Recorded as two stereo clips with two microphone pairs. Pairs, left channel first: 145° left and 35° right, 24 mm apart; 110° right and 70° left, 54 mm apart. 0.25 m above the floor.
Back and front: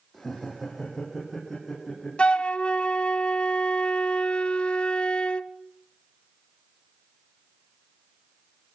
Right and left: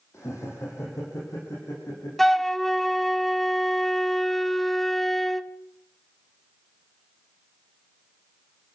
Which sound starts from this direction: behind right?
Laughter, at 0.1 s.